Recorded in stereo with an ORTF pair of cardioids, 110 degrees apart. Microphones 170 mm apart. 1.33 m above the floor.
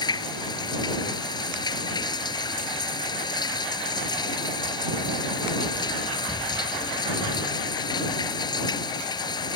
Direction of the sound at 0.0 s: 25° left.